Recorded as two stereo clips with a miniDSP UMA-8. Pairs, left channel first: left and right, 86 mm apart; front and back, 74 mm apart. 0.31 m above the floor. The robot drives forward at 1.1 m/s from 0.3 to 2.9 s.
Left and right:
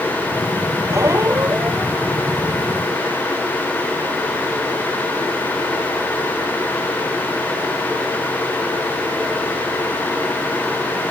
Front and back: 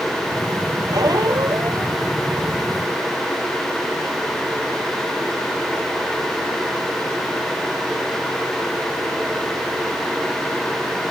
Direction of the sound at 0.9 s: 145° right.